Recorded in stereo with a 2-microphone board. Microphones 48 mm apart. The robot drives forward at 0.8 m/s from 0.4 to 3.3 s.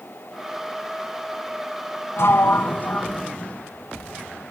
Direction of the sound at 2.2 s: 65° left (ahead or behind).